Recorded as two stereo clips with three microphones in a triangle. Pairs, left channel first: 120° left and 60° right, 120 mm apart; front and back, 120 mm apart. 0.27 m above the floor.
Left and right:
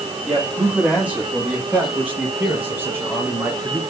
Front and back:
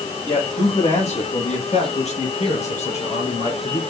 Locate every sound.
0.3 s a man speaking: 20° left, 8 m; by 3.8 s 5° left, 3 m